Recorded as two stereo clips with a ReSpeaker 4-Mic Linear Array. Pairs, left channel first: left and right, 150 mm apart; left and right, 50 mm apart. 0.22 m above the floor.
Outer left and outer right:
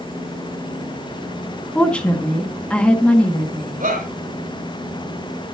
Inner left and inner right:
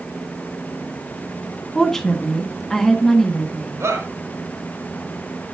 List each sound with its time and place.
1.8 s a woman speaking: 5° left (ahead or behind), 2.0 m
3.8 s a shout: 75° right (ahead or behind), 4.5 m